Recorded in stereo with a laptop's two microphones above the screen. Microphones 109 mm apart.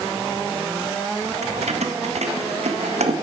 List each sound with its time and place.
1.4 s keys jangling: 80° right, 0.8 m